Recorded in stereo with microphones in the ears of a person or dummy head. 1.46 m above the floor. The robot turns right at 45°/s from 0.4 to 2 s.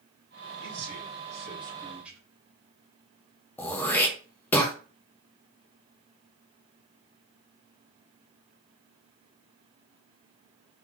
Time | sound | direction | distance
0.6 | a man speaking | 70° right | 2.5 m
3.6 | throat clearing | 10° left (ahead or behind) | 1.0 m